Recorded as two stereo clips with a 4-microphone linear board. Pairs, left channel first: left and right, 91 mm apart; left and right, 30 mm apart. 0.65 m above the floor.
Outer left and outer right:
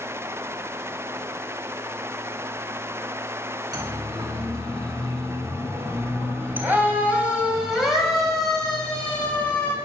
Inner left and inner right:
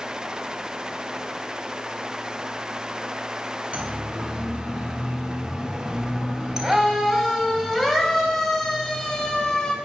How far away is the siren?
About 5.5 m.